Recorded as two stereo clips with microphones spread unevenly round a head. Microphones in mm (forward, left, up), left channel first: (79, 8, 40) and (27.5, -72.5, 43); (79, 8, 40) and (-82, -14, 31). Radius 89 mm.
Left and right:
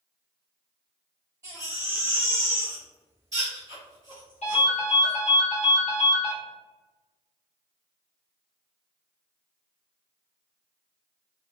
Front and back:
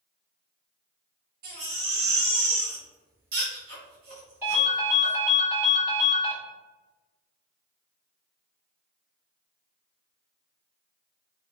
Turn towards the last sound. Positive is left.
turn(degrees=110)